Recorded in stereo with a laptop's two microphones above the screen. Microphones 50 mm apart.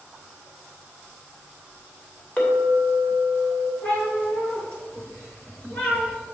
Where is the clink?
25° left (ahead or behind), 2.5 m.